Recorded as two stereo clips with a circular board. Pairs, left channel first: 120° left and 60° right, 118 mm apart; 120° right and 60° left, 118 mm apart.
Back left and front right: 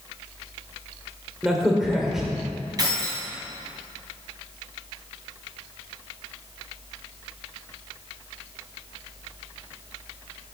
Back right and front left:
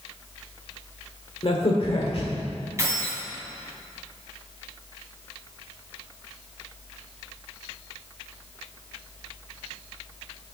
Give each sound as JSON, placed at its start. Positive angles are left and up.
{"t": 1.4, "sound": "a crack", "azimuth_deg": -145, "distance_m": 1.4}
{"t": 2.8, "sound": "keys jangling", "azimuth_deg": -5, "distance_m": 3.0}